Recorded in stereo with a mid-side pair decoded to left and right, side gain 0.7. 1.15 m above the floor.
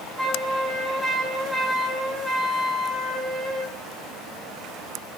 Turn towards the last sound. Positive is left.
turn(degrees=-5)